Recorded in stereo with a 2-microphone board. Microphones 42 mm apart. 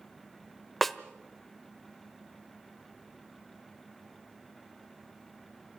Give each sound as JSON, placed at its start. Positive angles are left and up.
{"t": 0.8, "sound": "a snare drum", "side_deg": 0, "distance_m": 1.1}